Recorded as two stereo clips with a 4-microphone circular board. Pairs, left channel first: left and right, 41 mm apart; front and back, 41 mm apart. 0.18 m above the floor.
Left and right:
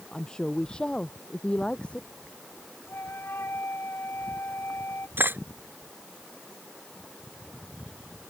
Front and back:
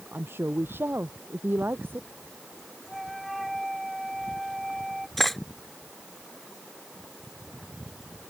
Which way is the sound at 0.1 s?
160° left.